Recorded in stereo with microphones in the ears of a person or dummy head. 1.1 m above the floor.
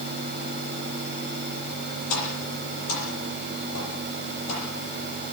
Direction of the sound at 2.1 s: 80° left.